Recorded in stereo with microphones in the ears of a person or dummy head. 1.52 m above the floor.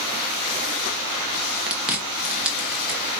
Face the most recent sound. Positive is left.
turn(degrees=0)  # may be behind; listen again after turning